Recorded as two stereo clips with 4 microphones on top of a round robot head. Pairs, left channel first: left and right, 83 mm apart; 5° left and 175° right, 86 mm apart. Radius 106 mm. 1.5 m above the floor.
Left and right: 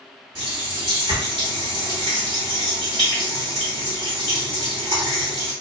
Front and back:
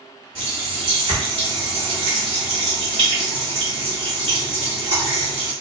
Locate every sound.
0.3 s a running tap: 145° right, 1.5 m